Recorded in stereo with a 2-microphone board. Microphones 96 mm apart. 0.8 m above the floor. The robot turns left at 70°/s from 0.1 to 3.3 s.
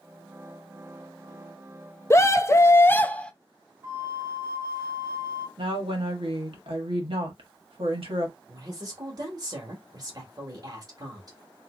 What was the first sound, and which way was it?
A scream, 30° left (ahead or behind).